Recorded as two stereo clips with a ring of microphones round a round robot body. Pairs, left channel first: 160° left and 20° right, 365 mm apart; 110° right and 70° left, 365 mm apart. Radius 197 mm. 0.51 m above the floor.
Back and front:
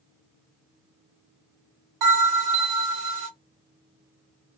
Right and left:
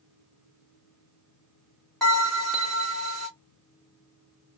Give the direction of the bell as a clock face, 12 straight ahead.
1 o'clock.